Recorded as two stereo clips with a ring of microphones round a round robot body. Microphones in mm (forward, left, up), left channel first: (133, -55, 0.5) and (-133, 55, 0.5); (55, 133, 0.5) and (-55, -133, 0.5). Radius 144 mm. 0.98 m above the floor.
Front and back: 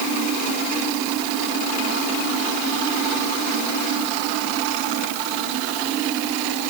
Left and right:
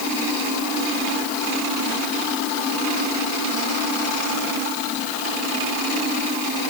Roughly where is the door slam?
No door slam in this recording.